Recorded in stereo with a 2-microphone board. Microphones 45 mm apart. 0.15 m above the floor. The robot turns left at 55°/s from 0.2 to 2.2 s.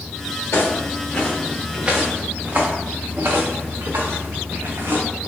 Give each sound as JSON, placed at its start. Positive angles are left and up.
{"t": 0.5, "sound": "footsteps", "side_deg": 80, "distance_m": 1.9}